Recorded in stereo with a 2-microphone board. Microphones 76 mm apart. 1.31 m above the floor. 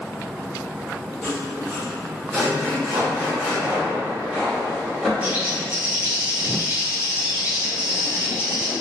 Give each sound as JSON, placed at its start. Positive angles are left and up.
{"t": 1.2, "sound": "sawing", "side_deg": 10, "distance_m": 1.0}
{"t": 2.9, "sound": "footsteps", "side_deg": -30, "distance_m": 1.7}
{"t": 5.2, "sound": "a bird", "side_deg": -15, "distance_m": 0.9}